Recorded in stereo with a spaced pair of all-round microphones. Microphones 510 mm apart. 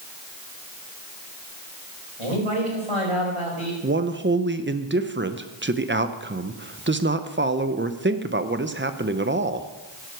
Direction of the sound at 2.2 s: 80° right.